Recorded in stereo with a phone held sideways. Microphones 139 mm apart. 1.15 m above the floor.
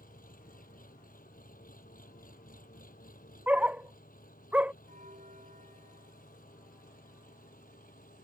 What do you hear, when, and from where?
0.0 s an engine running: 85° left
3.5 s a dog barking: 10° right (ahead or behind)
4.9 s a bell: 80° right